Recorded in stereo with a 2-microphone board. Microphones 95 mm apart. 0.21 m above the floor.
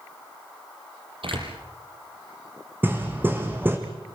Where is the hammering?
20° right (ahead or behind), 3 m.